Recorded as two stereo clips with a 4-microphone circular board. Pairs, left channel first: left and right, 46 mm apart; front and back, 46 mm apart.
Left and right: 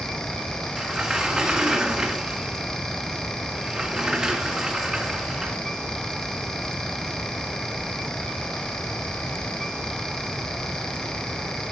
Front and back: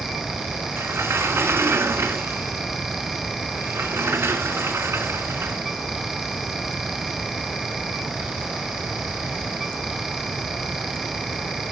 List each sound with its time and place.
0.8 s a sliding door: 165° right, 1.4 m